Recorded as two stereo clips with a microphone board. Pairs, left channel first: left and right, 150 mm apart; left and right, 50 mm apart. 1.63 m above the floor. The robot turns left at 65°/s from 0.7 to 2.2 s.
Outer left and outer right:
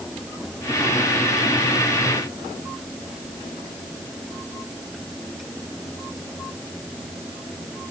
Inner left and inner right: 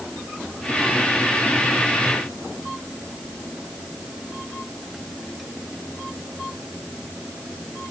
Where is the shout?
I don't hear a shout.